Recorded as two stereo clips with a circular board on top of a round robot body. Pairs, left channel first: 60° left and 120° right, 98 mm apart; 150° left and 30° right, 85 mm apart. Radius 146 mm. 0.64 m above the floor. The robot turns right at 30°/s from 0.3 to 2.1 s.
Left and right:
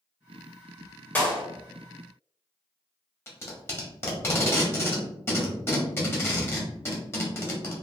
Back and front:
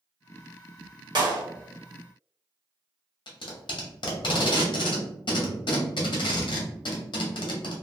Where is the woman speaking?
No woman speaking in this recording.